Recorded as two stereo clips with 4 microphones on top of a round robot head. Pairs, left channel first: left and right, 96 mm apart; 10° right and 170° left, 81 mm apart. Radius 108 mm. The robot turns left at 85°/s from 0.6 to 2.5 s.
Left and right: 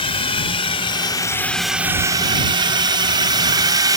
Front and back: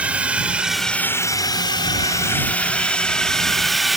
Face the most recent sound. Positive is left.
turn(degrees=-105)